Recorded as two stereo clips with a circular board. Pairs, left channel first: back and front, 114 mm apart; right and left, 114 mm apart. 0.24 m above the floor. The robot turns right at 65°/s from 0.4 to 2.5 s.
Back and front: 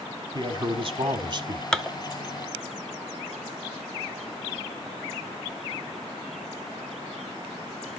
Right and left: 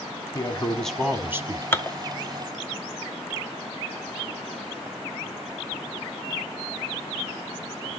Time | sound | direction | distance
0.3 | a man speaking | 35° right | 1.3 m
1.7 | dishes clattering | 110° right | 0.7 m